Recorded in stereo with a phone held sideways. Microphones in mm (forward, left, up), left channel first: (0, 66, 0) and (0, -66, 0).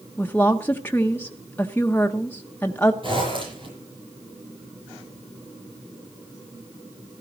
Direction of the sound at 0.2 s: 15° left (ahead or behind).